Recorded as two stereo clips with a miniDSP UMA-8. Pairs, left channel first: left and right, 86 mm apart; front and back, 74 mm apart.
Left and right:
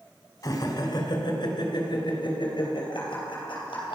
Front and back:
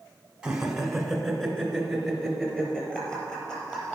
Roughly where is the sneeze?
I don't hear a sneeze.